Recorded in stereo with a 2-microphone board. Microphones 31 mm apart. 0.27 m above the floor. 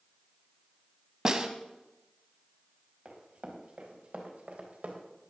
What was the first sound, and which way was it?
A snare drum, 20° right (ahead or behind).